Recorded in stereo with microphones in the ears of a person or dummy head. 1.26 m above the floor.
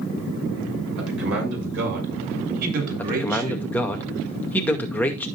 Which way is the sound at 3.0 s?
5° left (ahead or behind).